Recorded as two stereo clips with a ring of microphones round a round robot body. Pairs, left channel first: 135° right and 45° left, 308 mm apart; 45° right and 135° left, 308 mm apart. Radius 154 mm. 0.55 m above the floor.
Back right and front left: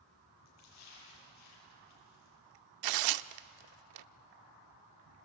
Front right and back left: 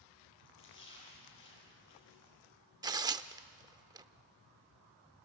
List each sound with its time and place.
0.5 s a splash: 95° right, 8 m
2.8 s tearing paper: 60° left, 0.5 m